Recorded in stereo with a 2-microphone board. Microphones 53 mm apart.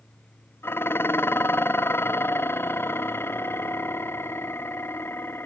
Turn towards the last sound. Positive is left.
turn(degrees=45)  # may be behind; listen again after turning